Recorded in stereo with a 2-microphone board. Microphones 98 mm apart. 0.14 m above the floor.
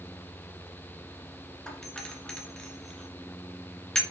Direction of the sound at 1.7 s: 5° left (ahead or behind).